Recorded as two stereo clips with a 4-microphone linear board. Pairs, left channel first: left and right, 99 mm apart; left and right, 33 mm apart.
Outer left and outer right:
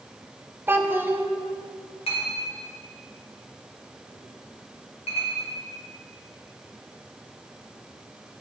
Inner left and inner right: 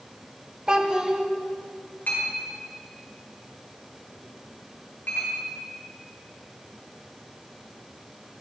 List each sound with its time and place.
0.7 s a child speaking: 20° right (ahead or behind), 0.7 m
2.1 s a clink: 80° left, 2 m